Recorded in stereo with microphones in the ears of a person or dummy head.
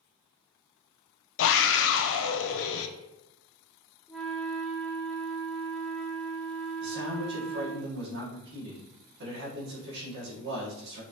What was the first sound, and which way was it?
A scream, 70° left (ahead or behind).